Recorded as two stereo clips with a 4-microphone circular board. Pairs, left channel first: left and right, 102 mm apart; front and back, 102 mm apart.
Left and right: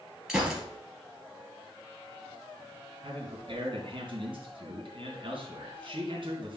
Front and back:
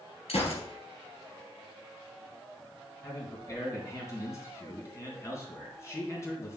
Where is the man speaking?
60° right, 3 m.